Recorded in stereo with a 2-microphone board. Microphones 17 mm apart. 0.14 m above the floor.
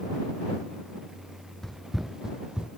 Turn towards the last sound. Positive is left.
turn(degrees=-65)  # may be behind; listen again after turning